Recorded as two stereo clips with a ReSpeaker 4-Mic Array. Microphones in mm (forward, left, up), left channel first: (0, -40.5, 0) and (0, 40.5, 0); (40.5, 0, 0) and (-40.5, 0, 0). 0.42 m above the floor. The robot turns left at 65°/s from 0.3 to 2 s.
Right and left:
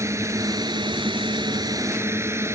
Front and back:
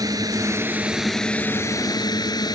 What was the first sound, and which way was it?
A drone, 140° left.